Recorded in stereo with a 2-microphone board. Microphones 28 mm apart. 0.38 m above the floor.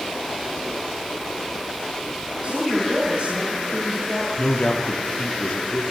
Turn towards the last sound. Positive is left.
turn(degrees=60)  # may be behind; listen again after turning